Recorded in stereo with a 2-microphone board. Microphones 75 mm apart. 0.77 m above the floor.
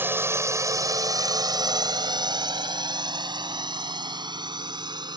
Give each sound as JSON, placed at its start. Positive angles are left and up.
{"t": 0.0, "sound": "a drone", "side_deg": -25}